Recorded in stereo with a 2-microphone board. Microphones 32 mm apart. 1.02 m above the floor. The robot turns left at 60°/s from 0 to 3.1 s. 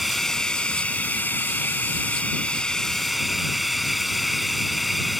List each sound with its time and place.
0.0 s running water: 175° right; by 5.2 s straight ahead